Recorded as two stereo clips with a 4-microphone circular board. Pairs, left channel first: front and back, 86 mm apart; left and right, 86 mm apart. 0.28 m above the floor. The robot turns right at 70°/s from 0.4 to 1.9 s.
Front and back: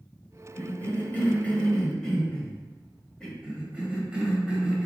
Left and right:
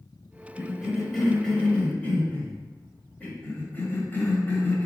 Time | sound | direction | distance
0.6 | a cough | 35° right | 1.3 m
3.4 | a cough | 115° left | 1.3 m